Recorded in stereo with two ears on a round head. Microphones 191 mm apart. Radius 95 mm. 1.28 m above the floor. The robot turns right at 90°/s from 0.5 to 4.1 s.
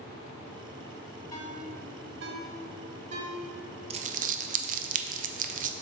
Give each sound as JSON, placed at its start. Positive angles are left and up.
{"t": 1.3, "sound": "a ringtone", "side_deg": 20, "distance_m": 1.1}
{"t": 3.9, "sound": "crumpling", "side_deg": -30, "distance_m": 0.5}